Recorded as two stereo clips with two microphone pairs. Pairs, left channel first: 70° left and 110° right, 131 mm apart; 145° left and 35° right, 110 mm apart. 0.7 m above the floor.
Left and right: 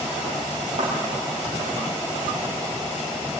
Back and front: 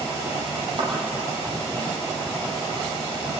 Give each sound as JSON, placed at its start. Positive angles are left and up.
{"t": 0.8, "sound": "a thud", "azimuth_deg": -75, "distance_m": 7.0}